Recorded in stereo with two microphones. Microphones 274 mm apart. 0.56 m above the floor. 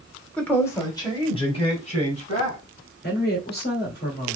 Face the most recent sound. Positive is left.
turn(degrees=40)  # may be behind; listen again after turning